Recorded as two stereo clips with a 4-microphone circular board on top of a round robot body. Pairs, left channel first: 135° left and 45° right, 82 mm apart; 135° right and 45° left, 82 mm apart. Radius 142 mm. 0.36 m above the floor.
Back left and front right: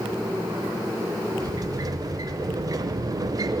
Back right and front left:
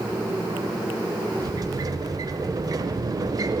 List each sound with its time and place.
1.4 s a sliding door: straight ahead, 0.6 m